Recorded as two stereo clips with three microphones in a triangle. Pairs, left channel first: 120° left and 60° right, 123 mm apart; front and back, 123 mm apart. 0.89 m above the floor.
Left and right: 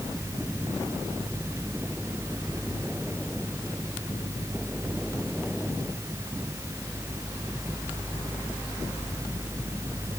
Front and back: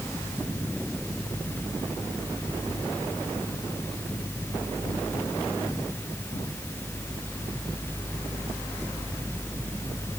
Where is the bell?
I don't hear a bell.